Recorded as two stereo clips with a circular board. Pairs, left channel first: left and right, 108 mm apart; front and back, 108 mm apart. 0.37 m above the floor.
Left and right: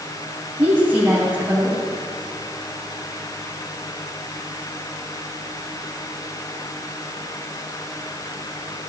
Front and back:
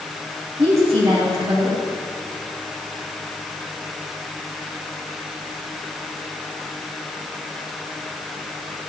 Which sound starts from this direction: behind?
A woman speaking, at 0.6 s.